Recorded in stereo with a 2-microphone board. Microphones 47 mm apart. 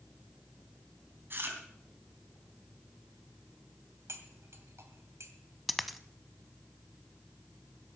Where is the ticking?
I don't hear ticking.